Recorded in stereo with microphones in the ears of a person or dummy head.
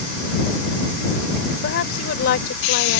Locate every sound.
1.6 s a woman speaking: 65° left (ahead or behind)